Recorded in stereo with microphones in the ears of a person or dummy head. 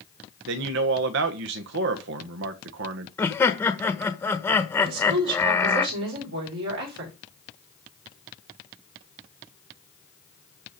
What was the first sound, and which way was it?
A man speaking, 70° right (ahead or behind).